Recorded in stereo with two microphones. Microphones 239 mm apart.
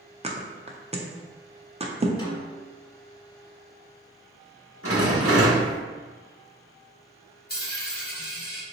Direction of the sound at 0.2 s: 25° right (ahead or behind).